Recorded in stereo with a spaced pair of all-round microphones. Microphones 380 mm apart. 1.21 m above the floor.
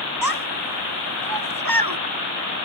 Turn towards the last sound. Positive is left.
turn(degrees=-65)  # may be behind; listen again after turning